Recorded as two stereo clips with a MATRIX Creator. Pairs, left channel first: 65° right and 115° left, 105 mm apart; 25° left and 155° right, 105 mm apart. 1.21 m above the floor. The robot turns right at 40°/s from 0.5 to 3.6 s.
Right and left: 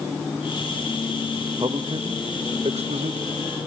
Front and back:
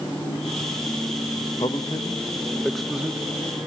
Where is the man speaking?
65° left, 1.0 m; by 3.2 s 125° left, 1.0 m.